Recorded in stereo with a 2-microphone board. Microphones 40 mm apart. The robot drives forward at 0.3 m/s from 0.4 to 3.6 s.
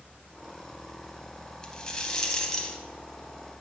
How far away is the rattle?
About 0.7 m.